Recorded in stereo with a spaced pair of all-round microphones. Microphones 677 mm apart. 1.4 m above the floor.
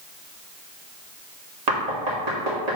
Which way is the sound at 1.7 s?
70° right (ahead or behind).